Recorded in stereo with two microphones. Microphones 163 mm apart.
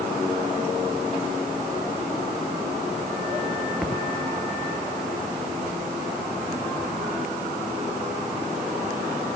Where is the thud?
Centre (ahead or behind).